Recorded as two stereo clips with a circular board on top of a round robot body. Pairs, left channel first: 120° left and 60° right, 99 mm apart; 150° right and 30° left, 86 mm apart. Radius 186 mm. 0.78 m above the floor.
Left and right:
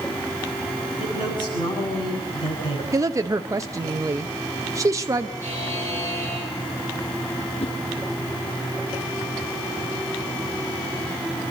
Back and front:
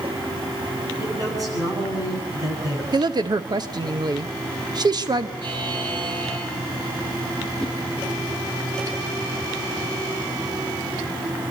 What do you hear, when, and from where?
1.0 s a man speaking: 80° left, 9 m
2.9 s a woman speaking: 5° right, 1.1 m
5.4 s a buzzer: 55° left, 7 m
7.6 s a whoosh: 130° left, 2.5 m